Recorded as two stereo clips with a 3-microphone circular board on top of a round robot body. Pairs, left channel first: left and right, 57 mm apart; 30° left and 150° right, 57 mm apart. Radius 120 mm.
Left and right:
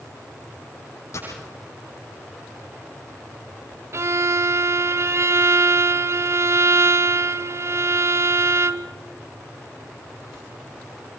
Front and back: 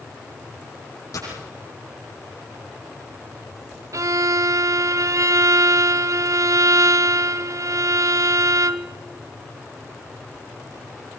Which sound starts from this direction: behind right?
A violin, at 3.9 s.